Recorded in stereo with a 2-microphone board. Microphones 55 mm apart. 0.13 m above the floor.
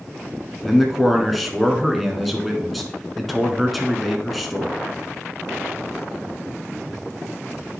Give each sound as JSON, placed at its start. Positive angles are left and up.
{"t": 0.6, "sound": "a man speaking", "side_deg": 0, "distance_m": 1.2}